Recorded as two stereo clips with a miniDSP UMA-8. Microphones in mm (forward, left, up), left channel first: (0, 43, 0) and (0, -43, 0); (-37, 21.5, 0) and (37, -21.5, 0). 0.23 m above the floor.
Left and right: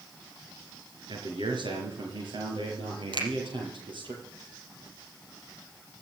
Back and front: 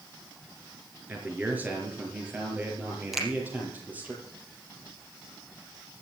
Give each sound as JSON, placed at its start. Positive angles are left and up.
{"t": 1.1, "sound": "a man speaking", "azimuth_deg": -100, "distance_m": 4.0}
{"t": 3.1, "sound": "a finger snap", "azimuth_deg": -115, "distance_m": 4.5}